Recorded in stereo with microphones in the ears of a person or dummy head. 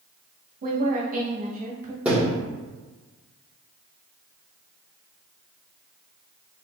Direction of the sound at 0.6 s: 40° right (ahead or behind).